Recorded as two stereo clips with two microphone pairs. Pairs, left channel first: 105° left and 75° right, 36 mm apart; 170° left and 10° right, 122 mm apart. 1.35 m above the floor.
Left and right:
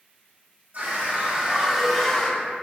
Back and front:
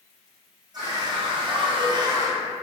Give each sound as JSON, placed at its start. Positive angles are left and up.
{"t": 0.7, "sound": "a scream", "azimuth_deg": -60, "distance_m": 0.8}